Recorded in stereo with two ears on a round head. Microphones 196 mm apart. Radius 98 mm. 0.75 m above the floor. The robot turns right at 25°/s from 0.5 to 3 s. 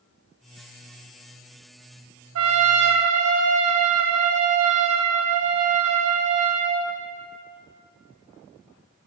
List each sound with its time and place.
2.4 s a trumpet: 75° right (ahead or behind), 0.9 m; by 6.9 s 85° right, 0.9 m